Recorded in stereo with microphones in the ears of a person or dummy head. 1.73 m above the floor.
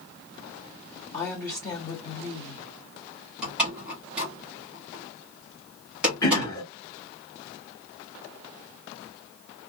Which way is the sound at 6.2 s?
20° left (ahead or behind).